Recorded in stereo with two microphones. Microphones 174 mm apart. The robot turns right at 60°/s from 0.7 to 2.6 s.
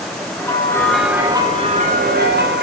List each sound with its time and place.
0.4 s a bell: 160° left, 2.5 m; by 2.6 s 85° right, 2.5 m